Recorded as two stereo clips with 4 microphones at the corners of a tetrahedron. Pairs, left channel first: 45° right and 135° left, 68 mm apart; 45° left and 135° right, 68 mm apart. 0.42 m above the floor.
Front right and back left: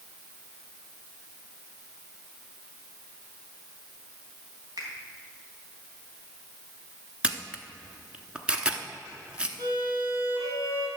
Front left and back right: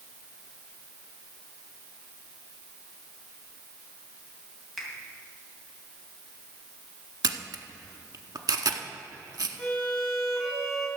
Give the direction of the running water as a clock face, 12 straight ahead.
No running water in this recording.